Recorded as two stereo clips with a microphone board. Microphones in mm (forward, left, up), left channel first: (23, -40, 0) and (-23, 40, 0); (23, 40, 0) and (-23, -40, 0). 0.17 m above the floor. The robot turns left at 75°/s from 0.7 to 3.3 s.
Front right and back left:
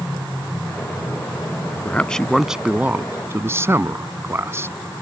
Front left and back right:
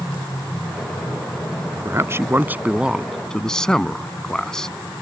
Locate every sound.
1.9 s a man speaking: 115° right; by 4.7 s 135° left